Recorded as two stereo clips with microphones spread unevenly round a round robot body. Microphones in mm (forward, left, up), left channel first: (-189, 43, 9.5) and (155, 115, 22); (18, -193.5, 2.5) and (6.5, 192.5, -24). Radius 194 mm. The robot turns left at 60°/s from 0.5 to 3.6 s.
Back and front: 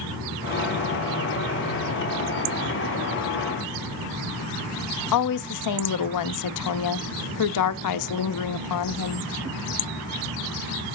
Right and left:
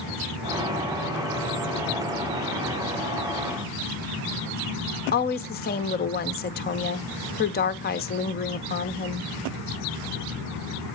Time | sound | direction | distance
5.1 | a woman speaking | 155° right | 0.8 m